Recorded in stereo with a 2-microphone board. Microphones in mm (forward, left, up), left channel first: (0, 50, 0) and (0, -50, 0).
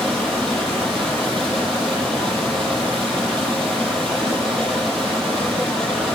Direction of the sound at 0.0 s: 5° left (ahead or behind).